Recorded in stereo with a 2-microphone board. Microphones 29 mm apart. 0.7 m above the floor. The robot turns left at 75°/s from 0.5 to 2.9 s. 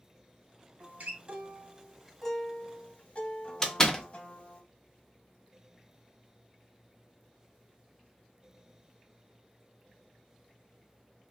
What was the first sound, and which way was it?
A guitar, 65° right.